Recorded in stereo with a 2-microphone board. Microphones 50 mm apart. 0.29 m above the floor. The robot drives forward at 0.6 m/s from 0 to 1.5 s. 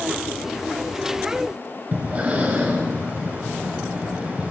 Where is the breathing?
30° right (ahead or behind), 1.1 m.